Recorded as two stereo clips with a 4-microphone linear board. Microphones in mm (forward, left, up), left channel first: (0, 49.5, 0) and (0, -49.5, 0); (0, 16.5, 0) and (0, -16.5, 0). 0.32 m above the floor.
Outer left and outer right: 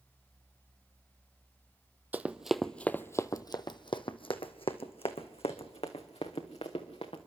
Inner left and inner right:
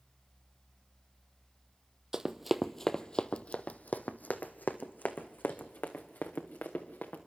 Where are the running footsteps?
20° right (ahead or behind), 0.8 m; by 7.2 s 85° left, 2.5 m.